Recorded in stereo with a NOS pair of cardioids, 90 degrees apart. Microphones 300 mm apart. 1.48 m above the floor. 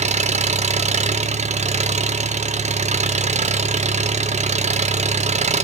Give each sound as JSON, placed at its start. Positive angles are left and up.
{"t": 0.0, "sound": "an engine running", "azimuth_deg": -25, "distance_m": 1.2}